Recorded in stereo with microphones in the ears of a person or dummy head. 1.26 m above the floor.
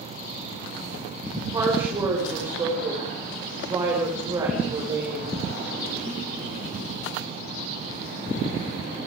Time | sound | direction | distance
1.5 | a woman speaking | 20° right (ahead or behind) | 5.5 m